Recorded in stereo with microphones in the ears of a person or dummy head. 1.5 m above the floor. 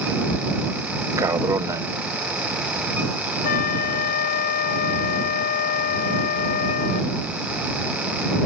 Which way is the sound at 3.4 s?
60° left (ahead or behind).